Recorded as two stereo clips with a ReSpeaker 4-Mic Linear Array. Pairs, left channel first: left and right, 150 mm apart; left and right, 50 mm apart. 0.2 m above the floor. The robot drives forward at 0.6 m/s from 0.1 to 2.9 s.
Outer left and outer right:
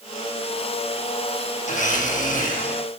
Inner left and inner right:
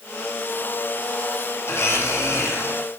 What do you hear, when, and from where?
1.7 s a blender: 55° left (ahead or behind), 6 m; by 2.9 s 60° left (ahead or behind), 5.5 m